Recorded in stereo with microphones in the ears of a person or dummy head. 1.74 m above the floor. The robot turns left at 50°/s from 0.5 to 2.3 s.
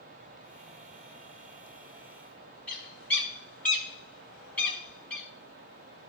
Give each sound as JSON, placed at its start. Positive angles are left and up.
{"t": 2.7, "sound": "a bird", "side_deg": 10, "distance_m": 1.0}